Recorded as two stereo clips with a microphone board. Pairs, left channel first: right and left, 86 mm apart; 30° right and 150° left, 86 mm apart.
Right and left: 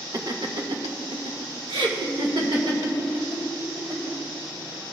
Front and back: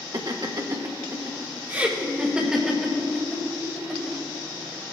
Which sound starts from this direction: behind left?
Laughter, at 0.1 s.